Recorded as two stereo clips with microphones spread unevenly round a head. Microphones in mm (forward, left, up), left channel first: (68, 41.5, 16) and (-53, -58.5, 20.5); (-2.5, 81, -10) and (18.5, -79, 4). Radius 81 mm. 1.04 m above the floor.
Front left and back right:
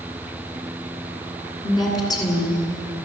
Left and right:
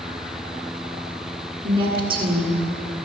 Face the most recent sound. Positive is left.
turn(degrees=-25)